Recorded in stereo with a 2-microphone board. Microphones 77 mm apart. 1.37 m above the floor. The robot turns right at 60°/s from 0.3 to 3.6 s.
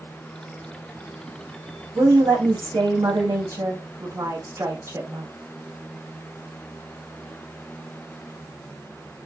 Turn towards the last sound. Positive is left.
turn(degrees=-40)